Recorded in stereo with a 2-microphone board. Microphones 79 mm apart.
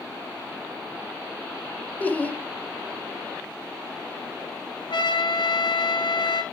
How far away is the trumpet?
About 1.9 m.